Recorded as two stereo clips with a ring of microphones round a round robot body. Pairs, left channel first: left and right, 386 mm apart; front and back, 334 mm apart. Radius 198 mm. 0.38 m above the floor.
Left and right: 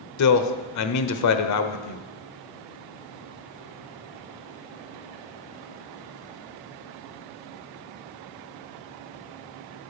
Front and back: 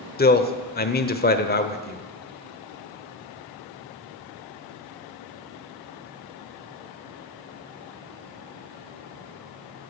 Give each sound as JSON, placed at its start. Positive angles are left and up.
{"t": 0.2, "sound": "a man speaking", "azimuth_deg": 55, "distance_m": 1.2}